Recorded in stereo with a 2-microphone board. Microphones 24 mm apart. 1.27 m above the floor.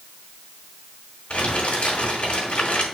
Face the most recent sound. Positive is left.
turn(degrees=60)  # may be behind; listen again after turning